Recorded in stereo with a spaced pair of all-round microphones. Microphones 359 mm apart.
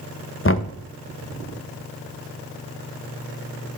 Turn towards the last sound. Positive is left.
turn(degrees=35)  # may be behind; listen again after turning